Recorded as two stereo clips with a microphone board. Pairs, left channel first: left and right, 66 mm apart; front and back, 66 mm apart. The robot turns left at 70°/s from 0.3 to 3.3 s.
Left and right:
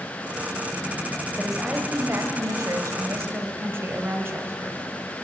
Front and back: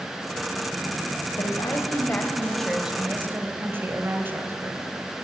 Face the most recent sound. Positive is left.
turn(degrees=-135)